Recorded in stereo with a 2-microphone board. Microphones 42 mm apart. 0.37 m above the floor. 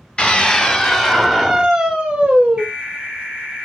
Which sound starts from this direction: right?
An alarm, at 2.6 s.